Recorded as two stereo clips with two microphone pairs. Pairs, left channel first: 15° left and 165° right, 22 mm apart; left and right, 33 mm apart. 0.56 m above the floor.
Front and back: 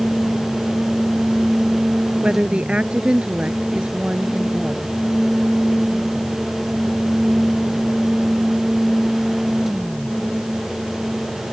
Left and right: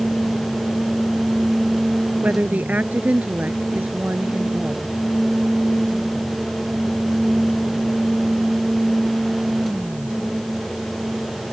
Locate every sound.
2.2 s a woman speaking: 125° right